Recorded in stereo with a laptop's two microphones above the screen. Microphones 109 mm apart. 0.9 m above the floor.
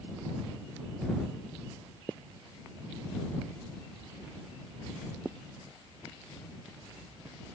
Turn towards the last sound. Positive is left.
No sound to turn to.